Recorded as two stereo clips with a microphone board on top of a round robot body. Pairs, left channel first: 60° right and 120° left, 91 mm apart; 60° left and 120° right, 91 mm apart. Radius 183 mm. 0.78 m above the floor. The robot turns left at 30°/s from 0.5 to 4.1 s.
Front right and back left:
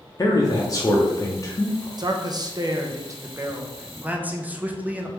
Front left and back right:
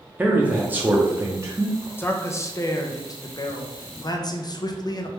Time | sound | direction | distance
0.2 | a man speaking | 55° right | 1.0 m
2.0 | a man speaking | 115° left | 0.8 m